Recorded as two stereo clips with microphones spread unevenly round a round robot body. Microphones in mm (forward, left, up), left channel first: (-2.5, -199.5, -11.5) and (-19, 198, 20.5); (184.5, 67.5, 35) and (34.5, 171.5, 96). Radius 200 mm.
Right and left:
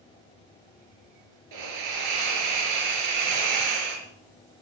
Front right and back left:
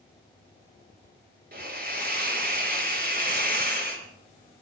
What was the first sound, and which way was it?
A hiss, 110° left.